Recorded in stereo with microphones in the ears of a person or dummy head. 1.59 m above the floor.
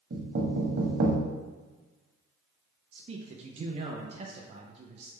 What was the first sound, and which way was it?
Knocking, 60° right (ahead or behind).